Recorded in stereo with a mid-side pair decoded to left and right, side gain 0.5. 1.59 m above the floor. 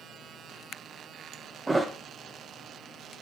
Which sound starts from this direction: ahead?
A thud, at 1.7 s.